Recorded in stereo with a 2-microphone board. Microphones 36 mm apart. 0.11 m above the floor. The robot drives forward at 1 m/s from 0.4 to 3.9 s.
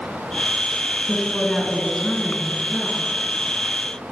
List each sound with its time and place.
1.1 s a woman speaking: 15° left (ahead or behind), 1.6 m; by 3.0 s 10° left (ahead or behind), 2 m